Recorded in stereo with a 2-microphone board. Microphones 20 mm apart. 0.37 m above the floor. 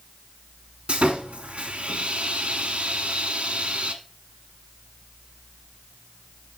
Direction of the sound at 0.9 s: 75° right (ahead or behind).